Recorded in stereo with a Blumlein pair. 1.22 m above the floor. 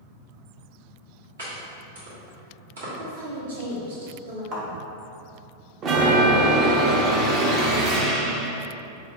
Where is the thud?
40° right, 1.6 m.